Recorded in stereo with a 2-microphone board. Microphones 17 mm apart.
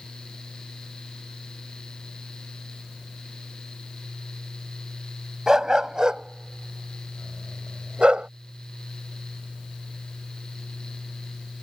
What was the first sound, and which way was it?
A dog barking, 30° right (ahead or behind).